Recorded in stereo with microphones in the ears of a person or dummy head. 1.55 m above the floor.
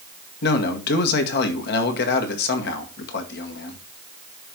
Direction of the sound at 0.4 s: 65° left (ahead or behind).